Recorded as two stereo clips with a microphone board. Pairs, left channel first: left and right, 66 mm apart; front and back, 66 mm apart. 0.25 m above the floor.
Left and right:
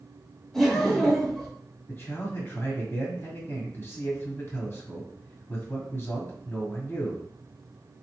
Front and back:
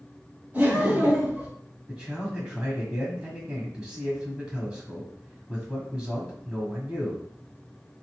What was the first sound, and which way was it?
Laughter, 165° left.